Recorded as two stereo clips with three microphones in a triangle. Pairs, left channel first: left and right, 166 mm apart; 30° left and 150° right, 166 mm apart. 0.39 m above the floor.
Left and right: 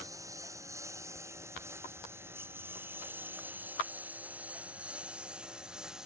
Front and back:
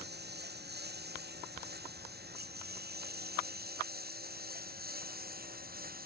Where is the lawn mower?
160° right; by 6.1 s 175° right.